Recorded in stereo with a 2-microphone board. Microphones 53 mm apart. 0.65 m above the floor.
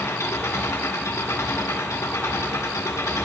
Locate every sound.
0.0 s an engine running: 80° left, 1.9 m